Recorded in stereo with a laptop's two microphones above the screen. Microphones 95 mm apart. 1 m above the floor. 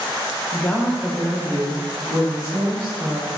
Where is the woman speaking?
30° left (ahead or behind), 0.6 m; by 3.3 s 45° right (ahead or behind), 2 m.